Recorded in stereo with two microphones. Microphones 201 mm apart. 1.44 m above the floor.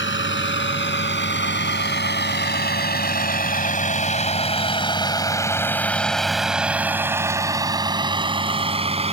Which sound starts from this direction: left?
A vehicle, at 0.0 s.